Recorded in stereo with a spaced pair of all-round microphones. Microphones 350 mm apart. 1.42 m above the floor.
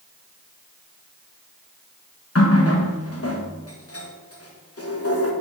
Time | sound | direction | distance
2.4 | a running tap | 40° left (ahead or behind) | 1.0 m